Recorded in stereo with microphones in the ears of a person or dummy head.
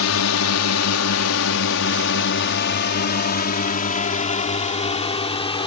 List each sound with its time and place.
0.0 s a drone: 80° left; by 5.7 s 30° left (ahead or behind)